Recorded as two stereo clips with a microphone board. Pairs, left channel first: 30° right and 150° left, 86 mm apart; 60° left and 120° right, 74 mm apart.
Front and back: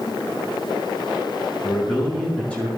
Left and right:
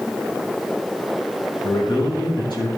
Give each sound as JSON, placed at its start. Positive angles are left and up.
{"t": 1.6, "sound": "a man speaking", "azimuth_deg": 45, "distance_m": 6.0}